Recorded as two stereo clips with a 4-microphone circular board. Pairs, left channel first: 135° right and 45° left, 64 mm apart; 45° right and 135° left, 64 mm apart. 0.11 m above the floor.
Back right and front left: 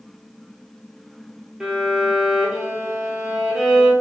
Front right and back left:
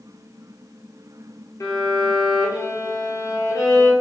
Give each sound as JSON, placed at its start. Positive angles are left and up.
{"t": 1.6, "sound": "a violin", "azimuth_deg": -35, "distance_m": 1.1}